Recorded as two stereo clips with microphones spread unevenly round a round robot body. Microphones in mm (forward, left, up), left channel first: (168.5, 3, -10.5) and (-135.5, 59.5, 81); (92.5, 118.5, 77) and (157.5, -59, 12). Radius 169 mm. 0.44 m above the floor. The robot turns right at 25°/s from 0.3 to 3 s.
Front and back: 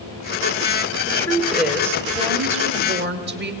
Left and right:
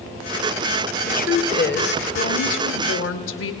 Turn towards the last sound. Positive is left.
turn(degrees=105)